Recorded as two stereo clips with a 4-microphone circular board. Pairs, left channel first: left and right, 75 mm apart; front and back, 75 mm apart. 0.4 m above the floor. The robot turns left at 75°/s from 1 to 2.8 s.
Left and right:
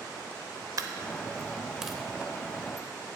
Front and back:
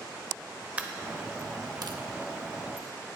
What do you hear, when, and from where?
0.8 s a dropped coin: 110° right, 0.5 m; by 2.9 s 115° left, 0.5 m